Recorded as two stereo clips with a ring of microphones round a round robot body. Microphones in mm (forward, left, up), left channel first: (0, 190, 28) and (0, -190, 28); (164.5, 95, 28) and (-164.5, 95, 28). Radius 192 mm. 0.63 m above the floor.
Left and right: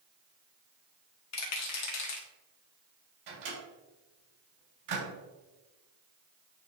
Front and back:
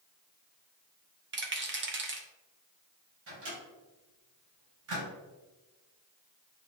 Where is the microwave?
125° right, 3 m.